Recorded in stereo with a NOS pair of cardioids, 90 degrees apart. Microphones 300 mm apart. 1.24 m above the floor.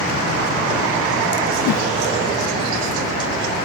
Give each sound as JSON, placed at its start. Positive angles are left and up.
{"t": 1.6, "sound": "a whoosh", "azimuth_deg": 65, "distance_m": 1.0}